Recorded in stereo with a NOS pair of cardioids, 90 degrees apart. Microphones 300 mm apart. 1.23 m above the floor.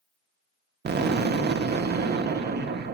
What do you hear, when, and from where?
0.8 s an explosion: 35° right, 0.6 m